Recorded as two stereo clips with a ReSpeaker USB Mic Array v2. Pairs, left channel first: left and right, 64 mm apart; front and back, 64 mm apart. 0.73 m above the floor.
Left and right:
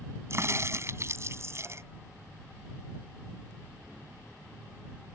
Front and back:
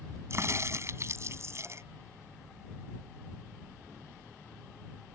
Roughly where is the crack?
Behind right.